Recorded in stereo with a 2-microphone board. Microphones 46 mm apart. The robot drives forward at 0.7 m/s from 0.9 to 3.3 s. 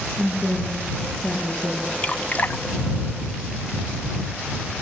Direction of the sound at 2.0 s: 30° left (ahead or behind).